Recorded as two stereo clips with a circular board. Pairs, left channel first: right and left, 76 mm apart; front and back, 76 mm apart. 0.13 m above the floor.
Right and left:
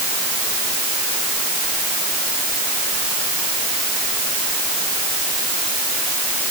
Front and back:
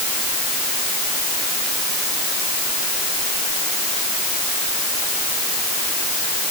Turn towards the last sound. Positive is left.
No sound to turn to.